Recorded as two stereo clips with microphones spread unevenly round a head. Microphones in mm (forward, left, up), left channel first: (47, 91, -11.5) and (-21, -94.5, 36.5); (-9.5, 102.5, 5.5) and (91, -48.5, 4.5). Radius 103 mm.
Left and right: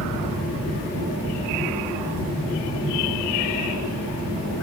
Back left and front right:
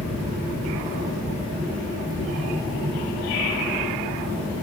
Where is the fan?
85° right, 5 m.